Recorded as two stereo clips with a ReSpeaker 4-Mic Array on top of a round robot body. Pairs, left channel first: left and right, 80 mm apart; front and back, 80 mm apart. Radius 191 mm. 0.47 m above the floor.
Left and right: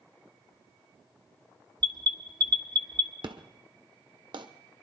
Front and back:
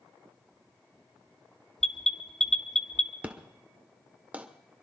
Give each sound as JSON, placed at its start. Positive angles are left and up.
{"t": 1.8, "sound": "an alarm", "azimuth_deg": -85, "distance_m": 1.6}
{"t": 3.2, "sound": "an explosion", "azimuth_deg": -110, "distance_m": 1.3}